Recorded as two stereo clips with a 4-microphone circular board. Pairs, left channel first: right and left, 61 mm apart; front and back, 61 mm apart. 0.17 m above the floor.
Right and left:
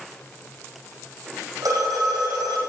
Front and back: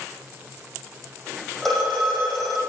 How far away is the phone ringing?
About 4.5 m.